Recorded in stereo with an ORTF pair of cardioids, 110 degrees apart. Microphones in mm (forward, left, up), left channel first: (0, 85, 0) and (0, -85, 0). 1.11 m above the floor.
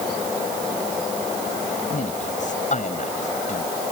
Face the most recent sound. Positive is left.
turn(degrees=45)